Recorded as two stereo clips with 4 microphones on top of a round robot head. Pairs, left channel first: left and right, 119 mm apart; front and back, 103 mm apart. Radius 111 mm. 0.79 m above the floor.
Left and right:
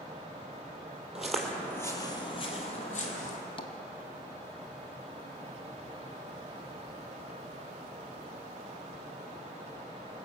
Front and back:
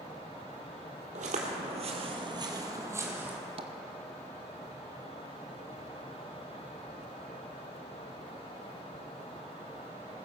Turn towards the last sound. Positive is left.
turn(degrees=140)